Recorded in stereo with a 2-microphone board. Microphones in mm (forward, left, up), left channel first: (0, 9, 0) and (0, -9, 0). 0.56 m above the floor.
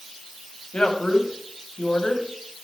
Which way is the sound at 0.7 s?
75° left (ahead or behind).